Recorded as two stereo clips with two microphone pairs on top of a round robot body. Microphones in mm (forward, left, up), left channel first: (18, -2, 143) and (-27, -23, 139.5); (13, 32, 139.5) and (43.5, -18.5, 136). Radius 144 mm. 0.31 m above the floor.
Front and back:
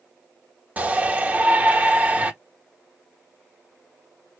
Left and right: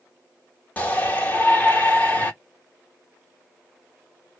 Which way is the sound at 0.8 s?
175° left.